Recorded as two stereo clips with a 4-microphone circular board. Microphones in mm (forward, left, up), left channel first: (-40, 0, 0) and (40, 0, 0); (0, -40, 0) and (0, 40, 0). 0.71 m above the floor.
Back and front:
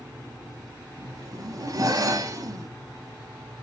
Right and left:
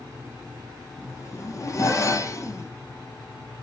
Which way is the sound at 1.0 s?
45° right.